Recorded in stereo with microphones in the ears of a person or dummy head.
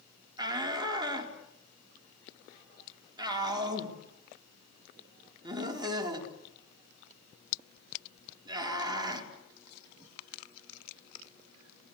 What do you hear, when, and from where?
0.4 s a shout: 20° right (ahead or behind), 3.5 m